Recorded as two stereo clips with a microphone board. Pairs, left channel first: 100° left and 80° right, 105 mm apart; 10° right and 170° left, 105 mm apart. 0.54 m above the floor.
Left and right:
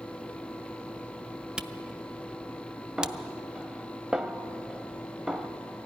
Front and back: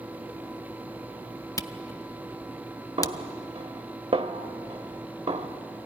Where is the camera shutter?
5° right, 0.5 m.